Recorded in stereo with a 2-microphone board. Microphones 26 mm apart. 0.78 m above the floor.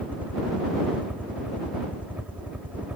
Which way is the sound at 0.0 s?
70° right (ahead or behind).